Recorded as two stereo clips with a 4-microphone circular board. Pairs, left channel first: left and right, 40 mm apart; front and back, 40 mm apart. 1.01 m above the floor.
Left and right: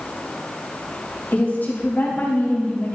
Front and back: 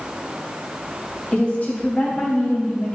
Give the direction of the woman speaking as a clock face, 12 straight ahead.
10 o'clock.